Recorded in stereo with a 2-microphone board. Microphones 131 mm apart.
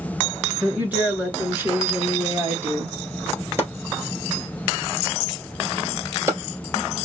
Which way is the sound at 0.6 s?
15° right (ahead or behind).